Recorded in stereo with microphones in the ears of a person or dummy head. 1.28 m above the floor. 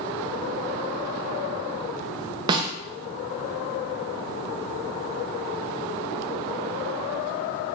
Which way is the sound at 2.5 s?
25° right (ahead or behind).